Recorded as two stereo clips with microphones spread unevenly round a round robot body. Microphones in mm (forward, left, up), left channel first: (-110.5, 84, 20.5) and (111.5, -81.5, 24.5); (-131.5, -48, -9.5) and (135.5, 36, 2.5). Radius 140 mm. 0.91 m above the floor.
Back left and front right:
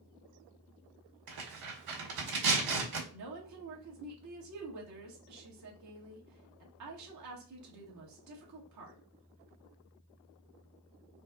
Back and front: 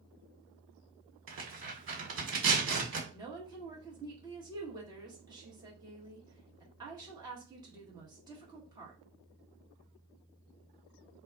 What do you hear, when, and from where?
1.3 s tearing paper: 30° right, 1.9 m
3.1 s a woman speaking: 60° right, 1.6 m